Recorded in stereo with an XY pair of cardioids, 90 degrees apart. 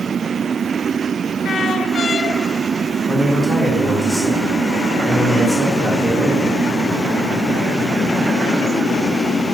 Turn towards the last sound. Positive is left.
turn(degrees=10)